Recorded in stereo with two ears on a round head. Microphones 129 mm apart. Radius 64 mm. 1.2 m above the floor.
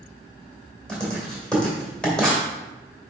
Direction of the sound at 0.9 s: 5° left (ahead or behind).